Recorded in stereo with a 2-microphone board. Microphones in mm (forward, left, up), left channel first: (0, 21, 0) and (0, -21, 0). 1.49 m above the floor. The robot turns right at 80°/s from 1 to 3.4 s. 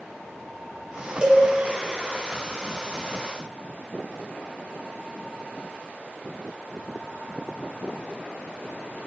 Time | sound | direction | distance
1.2 | a cowbell | 20° right (ahead or behind) | 0.7 m